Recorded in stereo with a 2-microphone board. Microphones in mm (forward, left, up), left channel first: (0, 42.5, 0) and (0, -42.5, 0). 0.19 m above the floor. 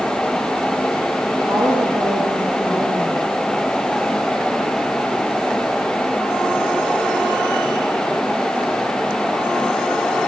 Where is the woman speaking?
55° right (ahead or behind), 10 m.